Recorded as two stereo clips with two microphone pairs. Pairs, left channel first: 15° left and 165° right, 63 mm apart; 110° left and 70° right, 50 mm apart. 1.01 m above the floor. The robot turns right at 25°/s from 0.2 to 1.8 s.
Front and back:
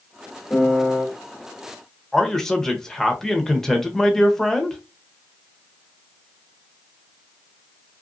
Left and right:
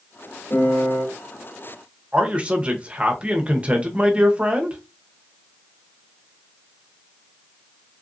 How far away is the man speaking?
About 0.7 m.